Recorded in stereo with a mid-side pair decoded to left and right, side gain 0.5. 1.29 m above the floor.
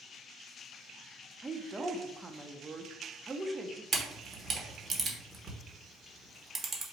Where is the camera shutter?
40° right, 1.3 m.